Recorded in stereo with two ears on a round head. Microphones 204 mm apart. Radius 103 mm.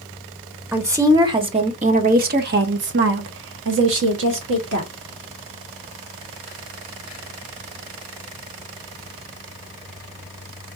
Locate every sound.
0.7 s a woman speaking: 10° right (ahead or behind), 1.2 m; by 4.9 s 55° right (ahead or behind), 1.7 m